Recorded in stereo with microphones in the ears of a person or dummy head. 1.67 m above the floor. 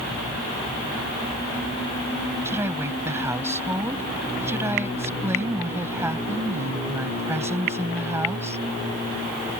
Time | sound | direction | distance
2.5 | a woman speaking | 15° right (ahead or behind) | ?